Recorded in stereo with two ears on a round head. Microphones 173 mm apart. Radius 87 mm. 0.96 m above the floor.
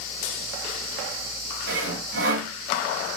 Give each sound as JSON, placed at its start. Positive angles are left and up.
{"t": 1.7, "sound": "sawing", "side_deg": -65, "distance_m": 2.5}